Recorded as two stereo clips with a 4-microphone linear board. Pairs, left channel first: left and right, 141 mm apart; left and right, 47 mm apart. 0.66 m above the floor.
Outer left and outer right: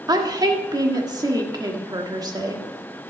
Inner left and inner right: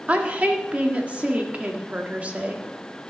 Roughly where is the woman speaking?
Right.